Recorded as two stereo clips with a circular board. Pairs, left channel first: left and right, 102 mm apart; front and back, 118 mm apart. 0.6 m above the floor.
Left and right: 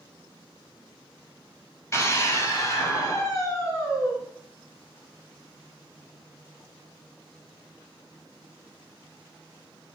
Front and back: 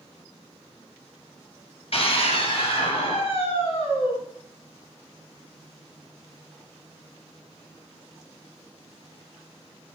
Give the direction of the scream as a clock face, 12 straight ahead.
11 o'clock.